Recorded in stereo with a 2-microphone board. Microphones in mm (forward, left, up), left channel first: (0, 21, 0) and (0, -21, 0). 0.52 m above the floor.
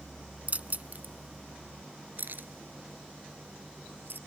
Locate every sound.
0.5 s keys jangling: 35° right (ahead or behind); by 4.2 s 55° right (ahead or behind)